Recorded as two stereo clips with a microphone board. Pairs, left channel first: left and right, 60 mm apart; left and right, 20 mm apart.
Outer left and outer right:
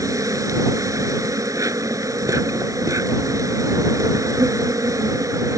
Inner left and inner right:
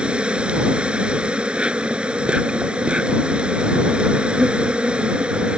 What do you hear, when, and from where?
0.0 s an insect: 70° right (ahead or behind)